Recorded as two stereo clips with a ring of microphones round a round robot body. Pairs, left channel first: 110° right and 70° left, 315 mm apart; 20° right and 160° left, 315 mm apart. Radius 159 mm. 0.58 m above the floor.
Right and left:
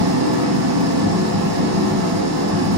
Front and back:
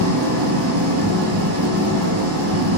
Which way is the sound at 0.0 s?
110° left.